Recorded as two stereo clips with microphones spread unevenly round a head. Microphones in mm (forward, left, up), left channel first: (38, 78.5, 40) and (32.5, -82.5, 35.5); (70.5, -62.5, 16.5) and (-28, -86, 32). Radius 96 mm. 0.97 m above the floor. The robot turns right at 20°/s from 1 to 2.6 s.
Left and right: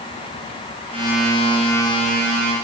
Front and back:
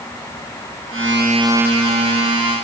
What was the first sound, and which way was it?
Only background noise.